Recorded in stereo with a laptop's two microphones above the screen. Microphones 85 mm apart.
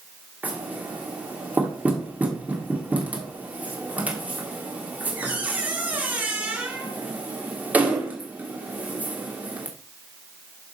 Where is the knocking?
20° right (ahead or behind), 1.6 m.